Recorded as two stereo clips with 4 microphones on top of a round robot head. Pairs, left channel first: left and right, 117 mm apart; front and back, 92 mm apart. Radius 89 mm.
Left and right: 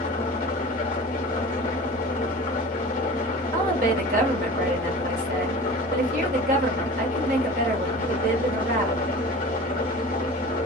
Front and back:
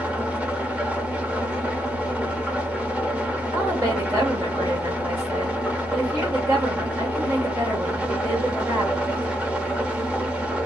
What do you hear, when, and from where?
0.0 s an engine running: 105° left, 0.9 m
3.5 s a woman speaking: 110° right, 1.1 m